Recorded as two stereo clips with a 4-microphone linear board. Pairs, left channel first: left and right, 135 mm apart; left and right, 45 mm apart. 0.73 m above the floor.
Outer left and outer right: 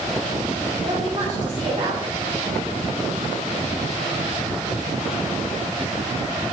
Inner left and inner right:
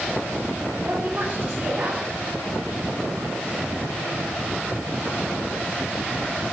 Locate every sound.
0.8 s a woman speaking: 35° right (ahead or behind), 2.5 m